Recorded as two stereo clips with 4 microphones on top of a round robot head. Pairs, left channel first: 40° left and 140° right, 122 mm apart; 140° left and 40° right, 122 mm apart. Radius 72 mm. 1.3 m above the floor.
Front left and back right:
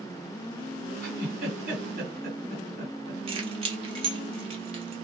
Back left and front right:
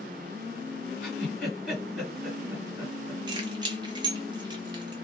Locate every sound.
1.0 s a giggle: 130° right, 1.9 m
3.3 s keys jangling: 95° right, 0.8 m